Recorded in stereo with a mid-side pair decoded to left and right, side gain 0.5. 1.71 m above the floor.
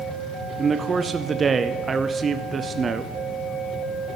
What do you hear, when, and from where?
0.6 s a man speaking: 35° right, 0.6 m